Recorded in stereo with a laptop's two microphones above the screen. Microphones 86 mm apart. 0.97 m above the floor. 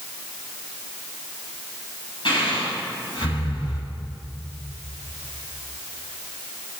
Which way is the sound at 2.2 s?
65° left (ahead or behind).